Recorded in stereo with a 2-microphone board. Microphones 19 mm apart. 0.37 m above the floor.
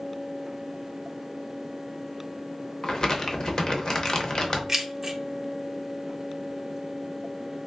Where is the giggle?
I don't hear a giggle.